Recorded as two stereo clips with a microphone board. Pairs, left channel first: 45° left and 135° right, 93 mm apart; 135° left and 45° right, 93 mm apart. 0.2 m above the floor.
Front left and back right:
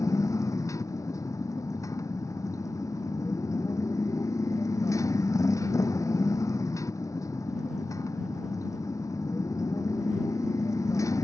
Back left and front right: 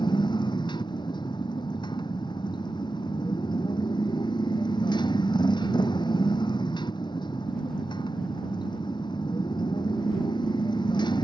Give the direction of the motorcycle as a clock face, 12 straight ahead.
9 o'clock.